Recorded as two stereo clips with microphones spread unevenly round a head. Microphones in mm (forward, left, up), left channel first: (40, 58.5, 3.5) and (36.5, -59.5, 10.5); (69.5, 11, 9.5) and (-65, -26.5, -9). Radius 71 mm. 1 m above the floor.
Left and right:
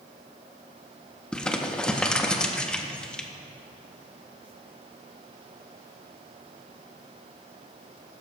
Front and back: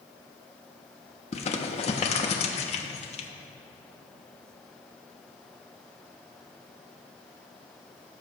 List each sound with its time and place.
1.3 s crumpling: 15° left, 0.9 m